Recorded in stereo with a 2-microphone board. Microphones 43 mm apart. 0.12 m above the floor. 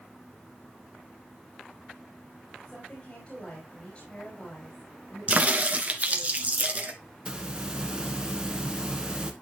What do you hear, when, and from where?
2.6 s a woman speaking: 30° left (ahead or behind), 3.5 m
5.3 s a crack: 35° right (ahead or behind), 1.2 m
7.2 s a hiss: 20° right (ahead or behind), 1.1 m